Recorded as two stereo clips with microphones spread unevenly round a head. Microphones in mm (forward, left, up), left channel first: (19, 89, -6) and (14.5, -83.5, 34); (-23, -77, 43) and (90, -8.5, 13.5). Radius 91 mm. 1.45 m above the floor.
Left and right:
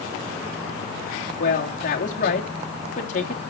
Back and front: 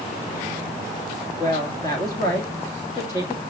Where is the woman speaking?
140° left, 2.5 m.